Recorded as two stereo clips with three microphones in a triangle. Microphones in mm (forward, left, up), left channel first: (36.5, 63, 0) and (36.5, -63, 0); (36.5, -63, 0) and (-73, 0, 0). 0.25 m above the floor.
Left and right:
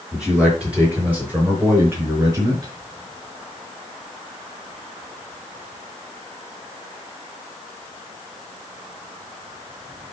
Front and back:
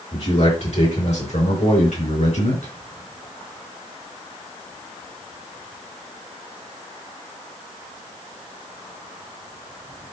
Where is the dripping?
I don't hear dripping.